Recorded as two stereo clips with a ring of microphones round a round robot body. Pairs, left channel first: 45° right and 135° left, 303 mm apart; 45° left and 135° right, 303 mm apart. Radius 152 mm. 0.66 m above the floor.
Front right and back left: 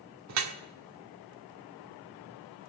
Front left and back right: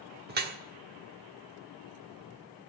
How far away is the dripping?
About 1.4 m.